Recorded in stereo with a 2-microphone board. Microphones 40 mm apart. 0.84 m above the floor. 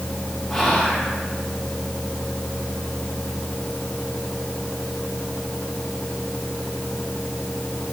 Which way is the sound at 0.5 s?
5° left (ahead or behind).